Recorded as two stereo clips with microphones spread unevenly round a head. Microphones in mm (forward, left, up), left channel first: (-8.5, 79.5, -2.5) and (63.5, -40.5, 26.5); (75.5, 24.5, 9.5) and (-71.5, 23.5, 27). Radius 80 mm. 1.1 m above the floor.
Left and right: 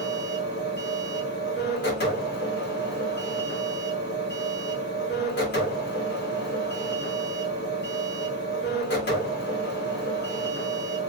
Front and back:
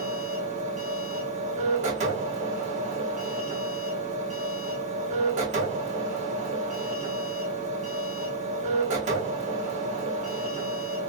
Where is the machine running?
140° left, 1.7 m.